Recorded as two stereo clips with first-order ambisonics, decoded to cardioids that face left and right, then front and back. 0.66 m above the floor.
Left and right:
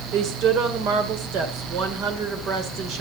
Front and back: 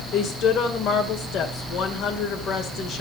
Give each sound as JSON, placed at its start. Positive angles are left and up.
{"t": 0.1, "sound": "a woman speaking", "azimuth_deg": -50, "distance_m": 2.0}